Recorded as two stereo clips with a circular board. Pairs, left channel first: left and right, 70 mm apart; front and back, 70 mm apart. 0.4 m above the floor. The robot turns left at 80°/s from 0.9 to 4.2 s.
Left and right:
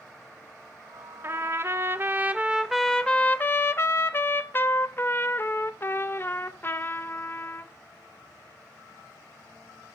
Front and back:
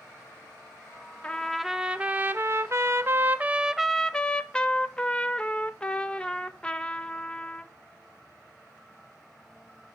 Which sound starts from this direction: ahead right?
A trumpet, at 1.2 s.